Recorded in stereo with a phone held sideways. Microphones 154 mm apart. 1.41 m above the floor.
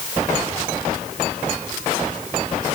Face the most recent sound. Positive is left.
No sound to turn to.